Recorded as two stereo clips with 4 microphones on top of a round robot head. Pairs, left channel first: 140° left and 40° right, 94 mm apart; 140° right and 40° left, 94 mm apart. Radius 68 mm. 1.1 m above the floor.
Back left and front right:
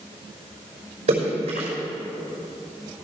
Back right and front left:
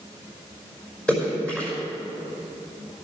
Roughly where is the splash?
Ahead right.